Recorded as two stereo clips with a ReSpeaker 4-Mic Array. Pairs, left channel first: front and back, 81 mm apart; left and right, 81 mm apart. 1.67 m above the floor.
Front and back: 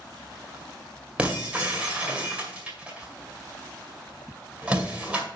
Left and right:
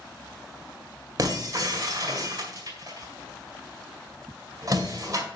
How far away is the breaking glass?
About 2 m.